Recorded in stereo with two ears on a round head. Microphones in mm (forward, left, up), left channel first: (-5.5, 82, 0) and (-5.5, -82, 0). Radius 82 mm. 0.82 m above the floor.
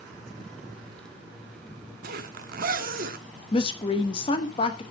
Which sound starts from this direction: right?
A zipper, at 2.0 s.